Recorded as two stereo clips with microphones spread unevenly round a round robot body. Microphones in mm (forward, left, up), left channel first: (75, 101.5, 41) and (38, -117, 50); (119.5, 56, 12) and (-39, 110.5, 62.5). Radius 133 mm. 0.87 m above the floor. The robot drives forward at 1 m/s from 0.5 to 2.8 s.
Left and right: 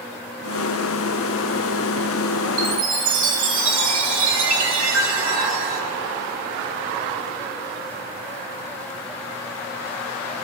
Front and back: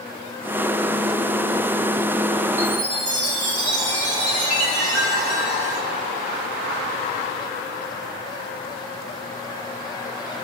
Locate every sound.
2.6 s a chime: 135° right, 2.5 m; by 5.8 s 140° right, 2.5 m